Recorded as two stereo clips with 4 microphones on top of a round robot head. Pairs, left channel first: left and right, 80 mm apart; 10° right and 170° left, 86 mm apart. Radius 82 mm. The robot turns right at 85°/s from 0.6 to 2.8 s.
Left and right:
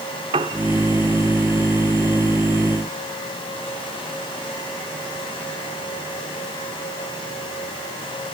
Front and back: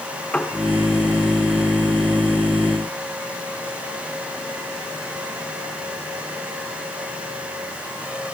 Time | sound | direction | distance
0.3 | a piano | 90° right | 0.9 m